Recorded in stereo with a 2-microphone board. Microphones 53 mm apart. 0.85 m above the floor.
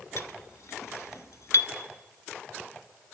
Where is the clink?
65° left (ahead or behind), 0.9 m.